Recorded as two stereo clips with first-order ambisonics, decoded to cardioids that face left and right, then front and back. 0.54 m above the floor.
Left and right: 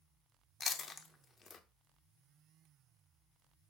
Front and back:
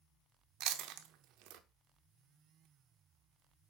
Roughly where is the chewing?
Behind.